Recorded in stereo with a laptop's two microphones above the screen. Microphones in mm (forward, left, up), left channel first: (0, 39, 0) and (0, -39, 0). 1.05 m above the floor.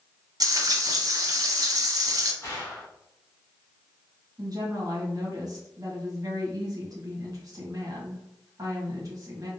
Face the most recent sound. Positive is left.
turn(degrees=-50)  # may be behind; listen again after turning